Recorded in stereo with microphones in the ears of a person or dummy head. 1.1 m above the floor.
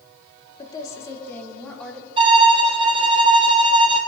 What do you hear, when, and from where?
0.6 s a woman speaking: 25° left (ahead or behind), 1.5 m; by 2.1 s centre (ahead or behind), 1.8 m
2.2 s a violin: 30° right (ahead or behind), 1.3 m